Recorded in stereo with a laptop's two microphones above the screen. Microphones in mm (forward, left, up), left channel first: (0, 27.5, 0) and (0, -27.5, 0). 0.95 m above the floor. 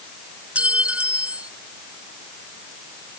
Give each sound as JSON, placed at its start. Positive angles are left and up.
{"t": 0.6, "sound": "a clink", "side_deg": -25}